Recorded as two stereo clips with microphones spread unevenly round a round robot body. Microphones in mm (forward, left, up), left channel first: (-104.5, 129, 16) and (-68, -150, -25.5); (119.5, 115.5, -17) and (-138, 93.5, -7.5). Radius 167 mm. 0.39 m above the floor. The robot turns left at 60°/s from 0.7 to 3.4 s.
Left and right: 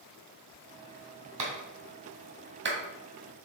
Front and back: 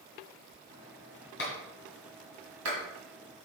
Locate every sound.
1.4 s a clap: 50° right, 1.7 m; by 2.8 s 135° right, 1.7 m